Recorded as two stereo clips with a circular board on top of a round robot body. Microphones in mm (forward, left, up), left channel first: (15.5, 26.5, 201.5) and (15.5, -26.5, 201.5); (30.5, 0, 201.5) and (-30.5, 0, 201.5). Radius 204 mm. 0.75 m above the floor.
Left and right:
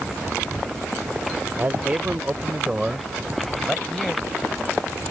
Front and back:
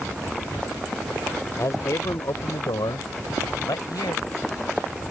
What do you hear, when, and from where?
1.6 s a man speaking: 35° right; by 4.2 s 5° left